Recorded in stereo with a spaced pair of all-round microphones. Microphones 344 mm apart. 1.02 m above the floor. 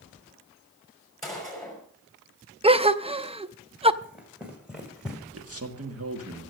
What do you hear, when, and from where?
1.2 s a gunshot: centre (ahead or behind), 5.5 m
2.6 s a gasp: 15° right (ahead or behind), 0.5 m
4.0 s running footsteps: 5° right (ahead or behind), 3.5 m; by 5.2 s centre (ahead or behind), 2.5 m
5.3 s a man speaking: 40° right (ahead or behind), 1.6 m